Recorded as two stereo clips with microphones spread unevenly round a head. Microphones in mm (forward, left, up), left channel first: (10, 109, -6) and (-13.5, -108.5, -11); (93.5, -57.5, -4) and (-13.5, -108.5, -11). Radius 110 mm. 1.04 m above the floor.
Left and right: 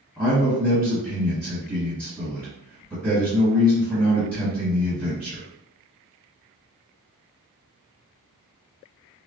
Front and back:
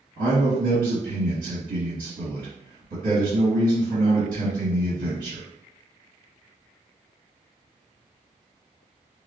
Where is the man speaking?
Straight behind, 1.1 m.